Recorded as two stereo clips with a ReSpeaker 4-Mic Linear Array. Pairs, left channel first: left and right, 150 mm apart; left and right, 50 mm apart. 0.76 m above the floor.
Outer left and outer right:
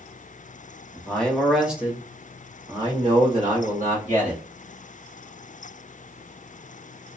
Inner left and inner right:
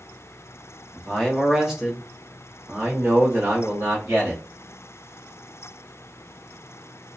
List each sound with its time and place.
0.9 s a man speaking: 15° left (ahead or behind), 1.1 m; by 4.4 s 55° right (ahead or behind), 1.6 m